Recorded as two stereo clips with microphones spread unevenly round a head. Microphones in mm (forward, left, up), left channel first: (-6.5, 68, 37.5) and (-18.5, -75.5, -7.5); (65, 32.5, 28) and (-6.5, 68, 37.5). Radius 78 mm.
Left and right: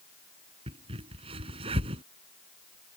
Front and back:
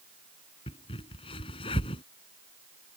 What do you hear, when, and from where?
0.7 s a crack: 30° right